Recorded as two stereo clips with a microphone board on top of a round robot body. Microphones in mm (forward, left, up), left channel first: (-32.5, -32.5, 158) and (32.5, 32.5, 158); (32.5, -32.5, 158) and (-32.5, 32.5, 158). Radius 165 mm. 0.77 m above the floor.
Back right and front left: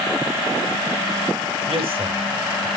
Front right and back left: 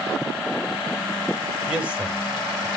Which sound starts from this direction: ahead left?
A man speaking, at 1.7 s.